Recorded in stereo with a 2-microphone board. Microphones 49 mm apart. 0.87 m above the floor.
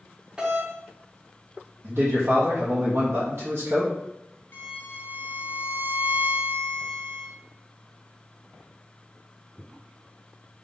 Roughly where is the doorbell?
Centre.